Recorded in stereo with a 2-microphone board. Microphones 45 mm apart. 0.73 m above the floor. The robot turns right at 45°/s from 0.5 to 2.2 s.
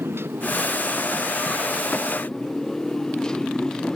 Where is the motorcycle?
65° right (ahead or behind); by 4.0 s 15° left (ahead or behind).